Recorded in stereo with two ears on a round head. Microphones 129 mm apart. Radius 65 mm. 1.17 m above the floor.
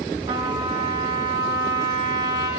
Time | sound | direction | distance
0.3 | a trumpet | 25° right (ahead or behind) | 2.5 m